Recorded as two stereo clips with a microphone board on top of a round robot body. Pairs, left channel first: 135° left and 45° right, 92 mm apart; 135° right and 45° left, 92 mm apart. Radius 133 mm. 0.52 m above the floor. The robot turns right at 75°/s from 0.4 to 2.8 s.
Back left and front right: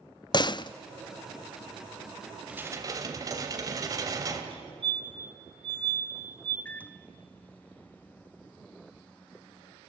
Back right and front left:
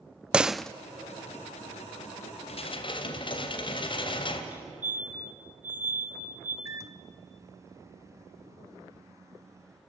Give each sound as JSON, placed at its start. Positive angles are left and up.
{"t": 0.3, "sound": "a door slam", "azimuth_deg": 120, "distance_m": 0.6}
{"t": 2.5, "sound": "dishes clattering", "azimuth_deg": -125, "distance_m": 2.0}
{"t": 4.5, "sound": "a fire alarm", "azimuth_deg": -25, "distance_m": 4.0}
{"t": 6.7, "sound": "a microwave", "azimuth_deg": 75, "distance_m": 0.8}